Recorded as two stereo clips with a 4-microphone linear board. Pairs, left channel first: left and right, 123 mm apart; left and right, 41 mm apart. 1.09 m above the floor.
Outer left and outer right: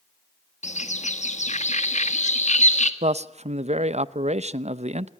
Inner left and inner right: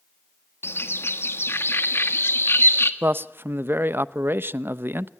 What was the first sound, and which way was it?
A bird, 75° left (ahead or behind).